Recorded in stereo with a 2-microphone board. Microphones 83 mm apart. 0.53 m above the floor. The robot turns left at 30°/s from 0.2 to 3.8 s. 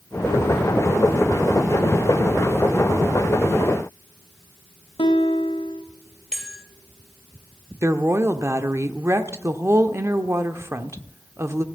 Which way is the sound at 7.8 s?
35° right (ahead or behind).